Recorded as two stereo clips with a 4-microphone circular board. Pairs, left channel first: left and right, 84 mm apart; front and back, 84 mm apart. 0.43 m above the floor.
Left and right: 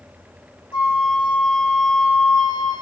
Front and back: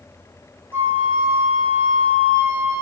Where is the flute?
110° left, 0.6 m.